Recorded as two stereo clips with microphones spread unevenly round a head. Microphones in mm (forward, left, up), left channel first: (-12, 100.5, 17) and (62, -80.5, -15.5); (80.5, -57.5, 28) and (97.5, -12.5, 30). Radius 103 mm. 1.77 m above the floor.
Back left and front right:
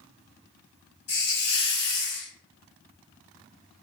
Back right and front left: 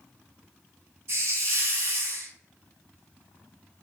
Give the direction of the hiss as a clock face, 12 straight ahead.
9 o'clock.